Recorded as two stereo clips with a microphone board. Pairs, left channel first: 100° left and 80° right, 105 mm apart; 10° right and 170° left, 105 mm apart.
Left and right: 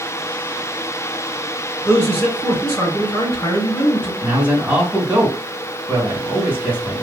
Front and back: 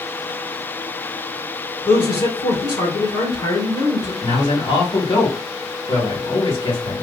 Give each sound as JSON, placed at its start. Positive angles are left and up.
{"t": 1.9, "sound": "a man speaking", "azimuth_deg": 35, "distance_m": 2.5}
{"t": 4.2, "sound": "a man speaking", "azimuth_deg": -5, "distance_m": 2.0}